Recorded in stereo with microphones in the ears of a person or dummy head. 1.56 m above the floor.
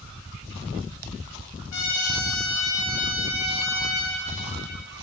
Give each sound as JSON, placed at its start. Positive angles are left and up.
{"t": 1.7, "sound": "a trumpet", "side_deg": 85, "distance_m": 1.0}